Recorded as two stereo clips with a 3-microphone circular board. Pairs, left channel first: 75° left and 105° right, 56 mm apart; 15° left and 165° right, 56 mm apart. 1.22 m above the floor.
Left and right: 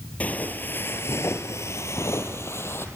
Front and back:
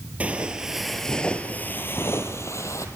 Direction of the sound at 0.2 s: 135° left.